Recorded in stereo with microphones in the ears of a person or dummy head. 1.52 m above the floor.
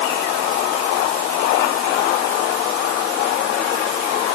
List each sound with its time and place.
Only background noise.